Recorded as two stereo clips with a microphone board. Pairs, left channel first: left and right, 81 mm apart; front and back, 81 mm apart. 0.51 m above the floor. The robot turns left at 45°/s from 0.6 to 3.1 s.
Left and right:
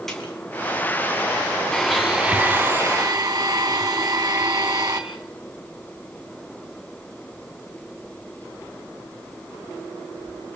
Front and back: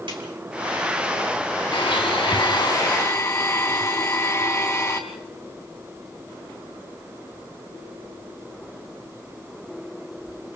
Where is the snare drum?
175° left, 4.5 m.